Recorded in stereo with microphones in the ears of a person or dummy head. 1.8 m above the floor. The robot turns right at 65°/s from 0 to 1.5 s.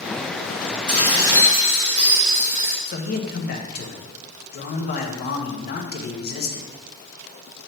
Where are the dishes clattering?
130° left, 1.2 m; by 2.8 s 170° left, 1.2 m.